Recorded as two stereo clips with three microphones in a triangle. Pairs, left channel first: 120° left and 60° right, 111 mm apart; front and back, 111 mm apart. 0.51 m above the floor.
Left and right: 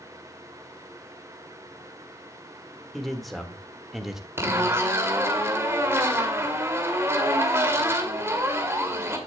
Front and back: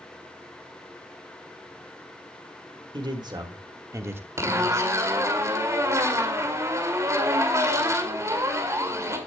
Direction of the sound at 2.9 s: 150° right.